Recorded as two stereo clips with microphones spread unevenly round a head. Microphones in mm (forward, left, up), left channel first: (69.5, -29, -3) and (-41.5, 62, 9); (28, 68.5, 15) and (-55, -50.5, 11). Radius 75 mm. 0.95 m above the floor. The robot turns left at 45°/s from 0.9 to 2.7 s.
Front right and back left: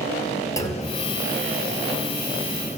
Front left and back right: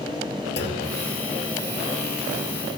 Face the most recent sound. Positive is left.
turn(degrees=-50)